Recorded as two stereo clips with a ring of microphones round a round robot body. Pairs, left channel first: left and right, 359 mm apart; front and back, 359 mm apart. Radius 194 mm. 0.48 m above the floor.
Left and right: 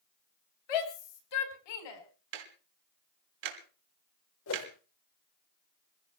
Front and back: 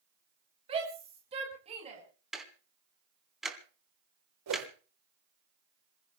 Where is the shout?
105° left, 3.5 m.